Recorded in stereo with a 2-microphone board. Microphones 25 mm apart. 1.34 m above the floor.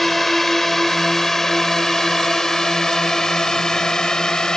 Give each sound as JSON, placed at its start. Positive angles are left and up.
{"t": 0.0, "sound": "a drone", "side_deg": 5}